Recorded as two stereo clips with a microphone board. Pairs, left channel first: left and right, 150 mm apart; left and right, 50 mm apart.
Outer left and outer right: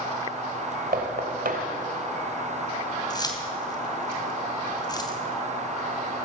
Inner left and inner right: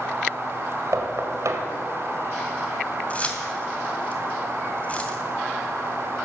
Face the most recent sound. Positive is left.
turn(degrees=25)  # may be behind; listen again after turning